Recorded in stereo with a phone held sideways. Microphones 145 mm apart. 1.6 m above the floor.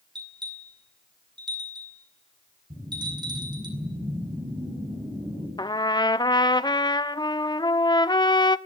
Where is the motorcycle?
I don't hear a motorcycle.